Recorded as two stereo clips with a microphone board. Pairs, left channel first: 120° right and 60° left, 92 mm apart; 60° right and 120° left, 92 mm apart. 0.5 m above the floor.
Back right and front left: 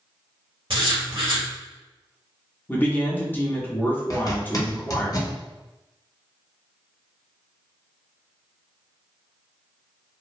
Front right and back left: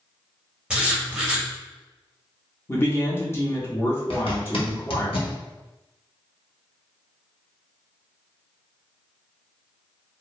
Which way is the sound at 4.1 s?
75° right.